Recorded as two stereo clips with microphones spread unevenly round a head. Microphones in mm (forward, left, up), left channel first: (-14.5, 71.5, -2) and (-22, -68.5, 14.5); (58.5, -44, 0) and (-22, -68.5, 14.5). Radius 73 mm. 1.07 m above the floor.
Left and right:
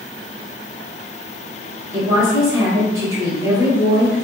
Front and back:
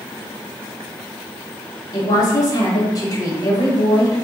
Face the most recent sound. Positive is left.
turn(degrees=-20)